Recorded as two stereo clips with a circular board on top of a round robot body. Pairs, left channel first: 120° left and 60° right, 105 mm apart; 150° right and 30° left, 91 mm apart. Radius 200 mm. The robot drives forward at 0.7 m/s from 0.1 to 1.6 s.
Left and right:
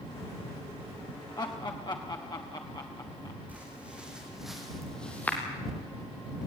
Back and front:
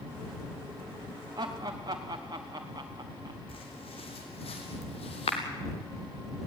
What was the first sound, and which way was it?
Laughter, 70° left.